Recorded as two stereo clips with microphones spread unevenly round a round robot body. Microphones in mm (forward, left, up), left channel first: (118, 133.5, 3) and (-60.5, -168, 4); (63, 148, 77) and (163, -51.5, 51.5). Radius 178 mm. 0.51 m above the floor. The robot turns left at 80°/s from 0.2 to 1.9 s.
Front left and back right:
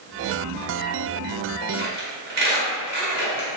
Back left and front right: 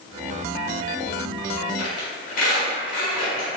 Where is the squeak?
175° right, 1.2 m; by 3.5 s 175° left, 1.2 m.